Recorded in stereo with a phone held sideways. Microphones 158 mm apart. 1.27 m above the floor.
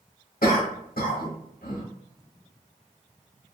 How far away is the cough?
About 1.0 m.